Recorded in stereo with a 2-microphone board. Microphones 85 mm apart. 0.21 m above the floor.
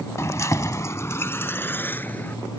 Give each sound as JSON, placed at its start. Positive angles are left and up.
{"t": 0.2, "sound": "keys jangling", "side_deg": 35}